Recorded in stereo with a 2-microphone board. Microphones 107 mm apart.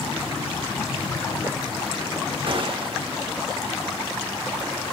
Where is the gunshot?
55° right (ahead or behind), 1.3 m.